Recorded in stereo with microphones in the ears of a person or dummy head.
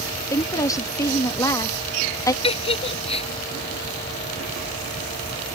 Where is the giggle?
30° left (ahead or behind).